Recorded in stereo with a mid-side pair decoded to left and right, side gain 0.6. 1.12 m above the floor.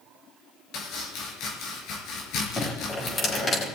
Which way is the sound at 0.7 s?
65° left.